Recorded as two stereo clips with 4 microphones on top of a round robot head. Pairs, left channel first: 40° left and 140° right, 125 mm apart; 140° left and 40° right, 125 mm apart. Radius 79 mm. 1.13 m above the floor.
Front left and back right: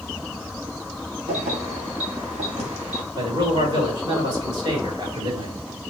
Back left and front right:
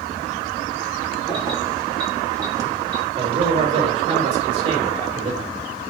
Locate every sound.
1.3 s keys jangling: 105° right, 2.5 m
3.1 s a man speaking: 85° right, 4.5 m